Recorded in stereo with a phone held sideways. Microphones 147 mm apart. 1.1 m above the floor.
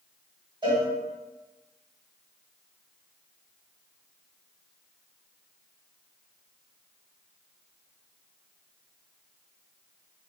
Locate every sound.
0.6 s a cowbell: 35° right (ahead or behind), 1.8 m